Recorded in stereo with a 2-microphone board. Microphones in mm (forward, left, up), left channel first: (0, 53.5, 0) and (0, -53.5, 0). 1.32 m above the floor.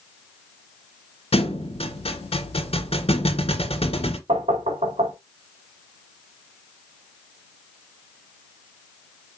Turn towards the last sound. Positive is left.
turn(degrees=-85)